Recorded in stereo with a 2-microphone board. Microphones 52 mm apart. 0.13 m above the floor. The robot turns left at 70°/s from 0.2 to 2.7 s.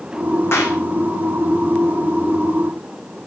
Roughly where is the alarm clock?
I don't hear an alarm clock.